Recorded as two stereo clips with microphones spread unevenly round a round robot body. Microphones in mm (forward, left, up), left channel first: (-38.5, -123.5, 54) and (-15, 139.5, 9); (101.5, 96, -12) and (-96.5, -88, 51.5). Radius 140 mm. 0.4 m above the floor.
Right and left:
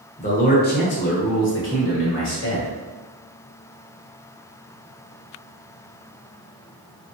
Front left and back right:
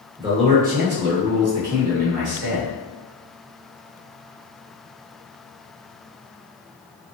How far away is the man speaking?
About 1.0 m.